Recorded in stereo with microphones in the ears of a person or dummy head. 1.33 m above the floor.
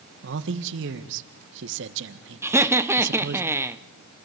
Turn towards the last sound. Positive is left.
turn(degrees=-15)  # may be behind; listen again after turning